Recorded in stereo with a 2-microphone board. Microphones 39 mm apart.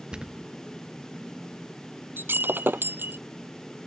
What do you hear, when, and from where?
0.1 s a thud: 25° right (ahead or behind)
2.2 s breaking glass: 70° right (ahead or behind)